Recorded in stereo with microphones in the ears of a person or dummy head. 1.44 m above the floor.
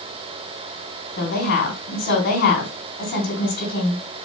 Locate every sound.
1.2 s a woman speaking: 55° left (ahead or behind), 3.5 m